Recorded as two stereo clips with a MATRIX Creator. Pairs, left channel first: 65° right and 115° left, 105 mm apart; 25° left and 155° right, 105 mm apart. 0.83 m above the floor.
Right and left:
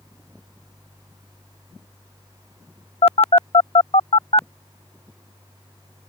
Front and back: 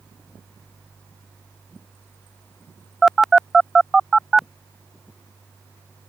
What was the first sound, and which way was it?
A phone buzzing, 70° right.